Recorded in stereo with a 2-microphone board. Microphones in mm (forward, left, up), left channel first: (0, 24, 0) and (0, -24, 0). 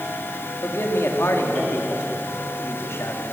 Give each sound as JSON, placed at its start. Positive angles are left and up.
{"t": 0.6, "sound": "a man speaking", "side_deg": 65, "distance_m": 3.0}